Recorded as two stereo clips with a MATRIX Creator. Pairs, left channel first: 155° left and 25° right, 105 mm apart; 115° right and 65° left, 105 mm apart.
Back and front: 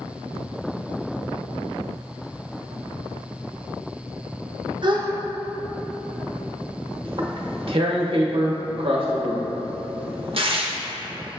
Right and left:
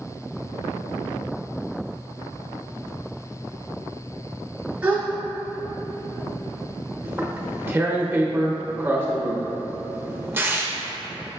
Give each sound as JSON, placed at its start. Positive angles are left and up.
{"t": 4.8, "sound": "a gasp", "azimuth_deg": -5, "distance_m": 0.6}
{"t": 7.0, "sound": "tearing paper", "azimuth_deg": 0, "distance_m": 0.6}